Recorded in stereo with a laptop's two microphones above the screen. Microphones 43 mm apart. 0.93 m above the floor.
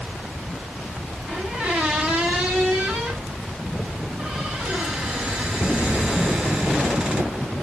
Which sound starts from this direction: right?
A squeak, at 1.3 s.